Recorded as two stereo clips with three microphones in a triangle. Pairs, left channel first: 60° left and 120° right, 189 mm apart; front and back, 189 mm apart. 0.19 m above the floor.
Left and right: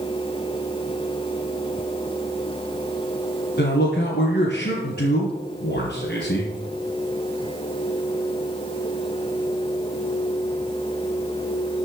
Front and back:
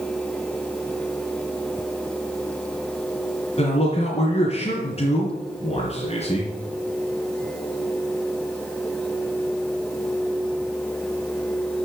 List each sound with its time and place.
3.6 s a man speaking: 50° left, 2.5 m